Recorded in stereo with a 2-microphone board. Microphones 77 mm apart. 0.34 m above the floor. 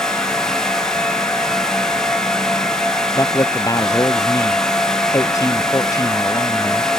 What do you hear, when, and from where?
3.1 s a man speaking: 45° left (ahead or behind)